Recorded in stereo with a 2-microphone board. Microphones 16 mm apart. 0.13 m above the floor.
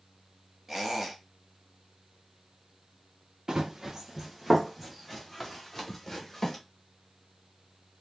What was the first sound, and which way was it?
A squeak, 15° right (ahead or behind).